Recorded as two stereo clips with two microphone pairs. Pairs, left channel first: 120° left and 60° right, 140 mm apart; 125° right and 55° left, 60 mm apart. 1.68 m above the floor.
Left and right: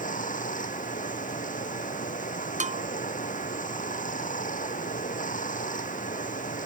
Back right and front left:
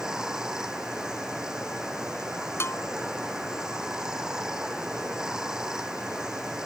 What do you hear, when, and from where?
0.0 s running water: 130° left
2.6 s a bell: 85° right